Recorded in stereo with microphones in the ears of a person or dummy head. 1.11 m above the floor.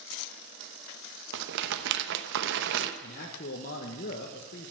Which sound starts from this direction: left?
A man speaking, at 3.0 s.